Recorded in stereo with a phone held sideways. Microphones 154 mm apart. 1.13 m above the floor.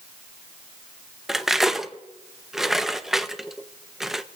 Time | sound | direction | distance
1.3 | cutlery clinking | centre (ahead or behind) | 0.5 m